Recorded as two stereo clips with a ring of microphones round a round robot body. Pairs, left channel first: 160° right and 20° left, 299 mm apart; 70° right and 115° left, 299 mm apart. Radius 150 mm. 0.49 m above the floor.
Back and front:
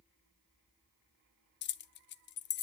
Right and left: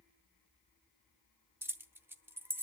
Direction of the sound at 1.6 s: 170° right.